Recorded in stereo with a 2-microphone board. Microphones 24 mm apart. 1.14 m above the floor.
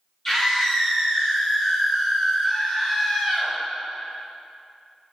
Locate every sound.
0.2 s a scream: 20° left (ahead or behind), 4 m